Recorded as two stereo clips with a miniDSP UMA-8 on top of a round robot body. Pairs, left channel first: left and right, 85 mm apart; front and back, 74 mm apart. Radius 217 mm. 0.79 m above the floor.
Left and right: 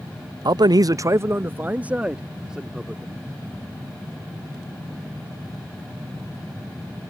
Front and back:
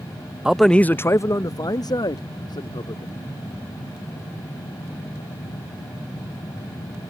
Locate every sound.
0.5 s a man speaking: 100° right; by 3.2 s 5° right